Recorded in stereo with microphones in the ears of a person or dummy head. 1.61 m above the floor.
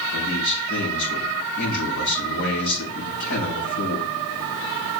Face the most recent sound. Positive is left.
turn(degrees=80)